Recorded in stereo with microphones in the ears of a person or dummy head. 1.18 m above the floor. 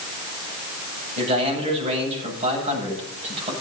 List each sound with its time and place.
1.2 s a man speaking: 30° right (ahead or behind), 9 m